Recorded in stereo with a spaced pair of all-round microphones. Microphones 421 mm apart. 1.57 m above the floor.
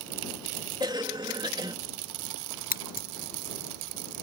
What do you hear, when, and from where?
0.8 s a cough: 10° right (ahead or behind)
2.7 s scissors: 20° left (ahead or behind)